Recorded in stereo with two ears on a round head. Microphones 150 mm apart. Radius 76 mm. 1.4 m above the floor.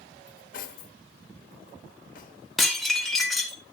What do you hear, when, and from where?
0.3 s cutlery clinking: 55° left (ahead or behind), 1.1 m
2.6 s dishes clattering: centre (ahead or behind), 2.5 m